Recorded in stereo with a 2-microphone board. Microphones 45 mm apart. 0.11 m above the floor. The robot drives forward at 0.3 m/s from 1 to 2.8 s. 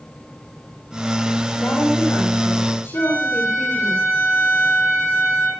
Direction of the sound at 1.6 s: 75° left (ahead or behind).